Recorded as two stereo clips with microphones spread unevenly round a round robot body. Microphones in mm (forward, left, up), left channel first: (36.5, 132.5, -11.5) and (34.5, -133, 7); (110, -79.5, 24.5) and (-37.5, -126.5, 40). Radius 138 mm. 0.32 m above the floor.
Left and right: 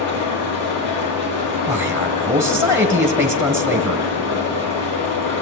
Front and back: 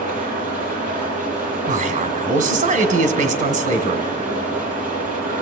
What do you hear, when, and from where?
0.0 s an engine running: 80° left, 9 m
1.7 s a man speaking: 175° right, 1.8 m